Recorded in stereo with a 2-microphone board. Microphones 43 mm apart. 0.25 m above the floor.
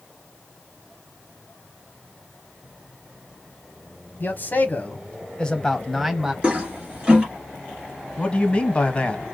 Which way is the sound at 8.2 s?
25° left (ahead or behind).